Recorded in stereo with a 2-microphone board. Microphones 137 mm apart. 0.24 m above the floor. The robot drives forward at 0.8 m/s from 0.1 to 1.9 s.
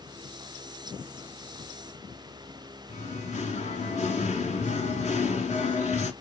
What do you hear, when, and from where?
2.9 s singing: 60° left (ahead or behind), 1.0 m